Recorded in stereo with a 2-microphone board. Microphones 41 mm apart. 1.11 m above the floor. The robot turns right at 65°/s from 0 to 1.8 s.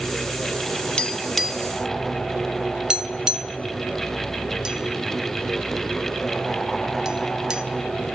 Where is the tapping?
25° left (ahead or behind), 0.5 m; by 7.6 s 15° right (ahead or behind), 0.5 m.